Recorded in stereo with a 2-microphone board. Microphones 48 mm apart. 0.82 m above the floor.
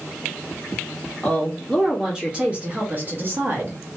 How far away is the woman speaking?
About 1.5 m.